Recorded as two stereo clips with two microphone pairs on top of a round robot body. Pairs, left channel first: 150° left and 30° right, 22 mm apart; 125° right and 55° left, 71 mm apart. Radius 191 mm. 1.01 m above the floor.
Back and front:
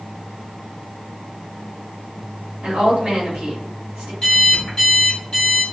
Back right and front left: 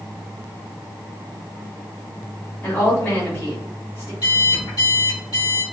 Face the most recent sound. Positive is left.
turn(degrees=-135)